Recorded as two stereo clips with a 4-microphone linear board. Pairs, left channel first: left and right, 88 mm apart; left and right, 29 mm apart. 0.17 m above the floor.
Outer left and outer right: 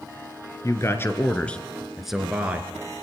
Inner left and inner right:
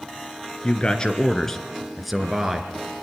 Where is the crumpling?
I don't hear crumpling.